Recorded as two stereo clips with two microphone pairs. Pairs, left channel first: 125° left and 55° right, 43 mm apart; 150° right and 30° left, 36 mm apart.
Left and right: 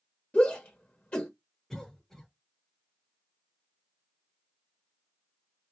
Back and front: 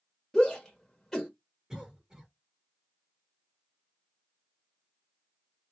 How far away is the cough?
About 1.2 m.